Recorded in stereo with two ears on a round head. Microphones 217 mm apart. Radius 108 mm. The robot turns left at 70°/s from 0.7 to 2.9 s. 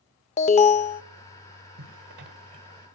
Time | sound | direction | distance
0.4 | an alarm | 30° left (ahead or behind) | 0.5 m
1.8 | a zipper | 60° right (ahead or behind) | 1.9 m